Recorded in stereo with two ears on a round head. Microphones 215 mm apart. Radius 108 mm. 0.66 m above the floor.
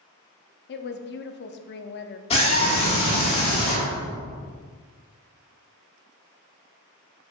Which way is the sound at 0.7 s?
45° left (ahead or behind).